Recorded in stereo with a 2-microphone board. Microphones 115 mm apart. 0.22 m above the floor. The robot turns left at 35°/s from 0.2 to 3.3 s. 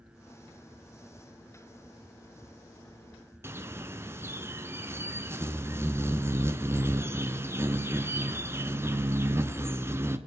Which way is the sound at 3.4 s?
20° right (ahead or behind).